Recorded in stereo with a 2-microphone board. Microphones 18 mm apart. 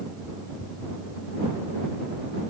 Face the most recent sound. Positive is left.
No sound to turn to.